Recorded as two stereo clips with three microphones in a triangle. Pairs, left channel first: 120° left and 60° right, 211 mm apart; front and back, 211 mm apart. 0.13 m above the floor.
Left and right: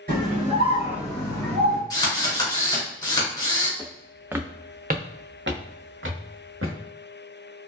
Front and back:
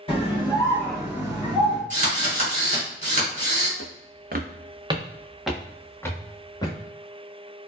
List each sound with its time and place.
0.1 s a scream: 50° right, 1.6 m; by 1.8 s 140° left, 1.4 m
1.9 s a drill: straight behind, 1.4 m
3.8 s footsteps: 165° right, 0.7 m; by 6.8 s 70° right, 1.4 m